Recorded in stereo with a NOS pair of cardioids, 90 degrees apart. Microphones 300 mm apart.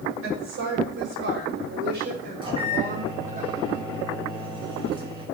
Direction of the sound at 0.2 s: 45° right.